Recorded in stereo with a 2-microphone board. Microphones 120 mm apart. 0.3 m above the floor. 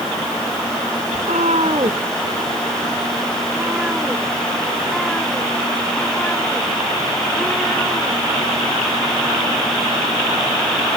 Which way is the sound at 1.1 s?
85° right.